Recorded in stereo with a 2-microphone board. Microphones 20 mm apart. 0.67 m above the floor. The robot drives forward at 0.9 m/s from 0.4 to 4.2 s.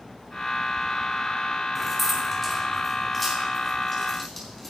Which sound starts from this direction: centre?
Keys jangling, at 1.8 s.